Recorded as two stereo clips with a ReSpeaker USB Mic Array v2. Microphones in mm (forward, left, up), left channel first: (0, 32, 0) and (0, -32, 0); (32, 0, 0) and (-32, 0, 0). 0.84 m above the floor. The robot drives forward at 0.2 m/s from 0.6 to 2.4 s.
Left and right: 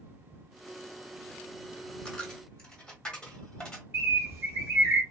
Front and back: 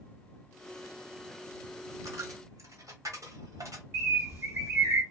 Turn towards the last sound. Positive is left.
turn(degrees=-140)